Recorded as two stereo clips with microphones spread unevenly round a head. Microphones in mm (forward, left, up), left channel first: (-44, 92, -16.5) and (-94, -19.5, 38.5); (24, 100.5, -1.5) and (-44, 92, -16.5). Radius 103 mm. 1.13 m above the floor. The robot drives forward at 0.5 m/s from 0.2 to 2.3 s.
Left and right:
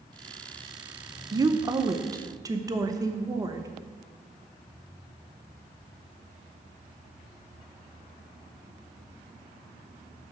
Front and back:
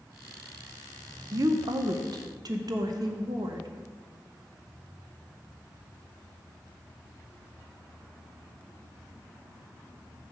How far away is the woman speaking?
About 0.6 m.